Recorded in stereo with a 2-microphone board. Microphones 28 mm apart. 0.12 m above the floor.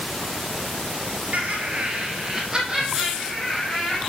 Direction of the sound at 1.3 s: 55° right (ahead or behind).